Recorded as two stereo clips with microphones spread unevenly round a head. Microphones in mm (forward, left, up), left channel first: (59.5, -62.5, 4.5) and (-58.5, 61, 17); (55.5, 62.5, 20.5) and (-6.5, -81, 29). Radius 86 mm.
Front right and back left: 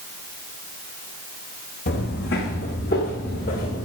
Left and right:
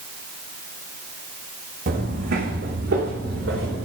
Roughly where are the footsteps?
Right.